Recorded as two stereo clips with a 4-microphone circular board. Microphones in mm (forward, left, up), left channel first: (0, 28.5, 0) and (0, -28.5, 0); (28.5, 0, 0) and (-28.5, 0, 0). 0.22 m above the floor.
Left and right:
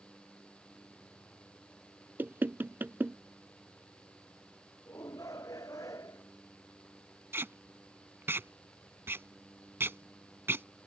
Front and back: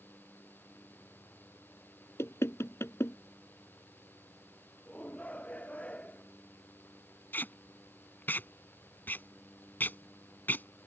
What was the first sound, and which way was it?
Knocking, 40° right.